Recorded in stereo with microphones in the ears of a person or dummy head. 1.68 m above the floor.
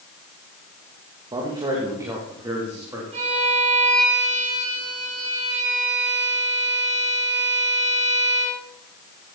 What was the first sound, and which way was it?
A man speaking, 30° right (ahead or behind).